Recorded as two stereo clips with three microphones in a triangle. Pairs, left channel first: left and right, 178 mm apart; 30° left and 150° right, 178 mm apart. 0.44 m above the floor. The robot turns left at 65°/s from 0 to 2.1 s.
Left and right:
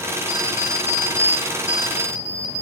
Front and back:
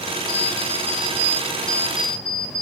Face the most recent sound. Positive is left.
turn(degrees=135)